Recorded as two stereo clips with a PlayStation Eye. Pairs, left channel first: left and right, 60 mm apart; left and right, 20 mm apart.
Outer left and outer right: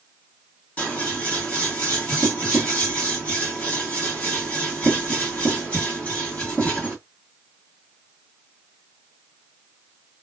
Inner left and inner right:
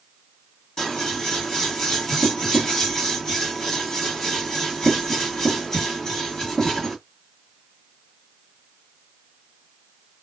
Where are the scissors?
25° left (ahead or behind), 1.6 m.